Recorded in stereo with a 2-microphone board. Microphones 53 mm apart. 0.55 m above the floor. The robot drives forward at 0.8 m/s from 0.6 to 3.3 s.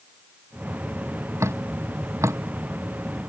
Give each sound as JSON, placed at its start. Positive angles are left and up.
{"t": 1.4, "sound": "dripping", "side_deg": -60}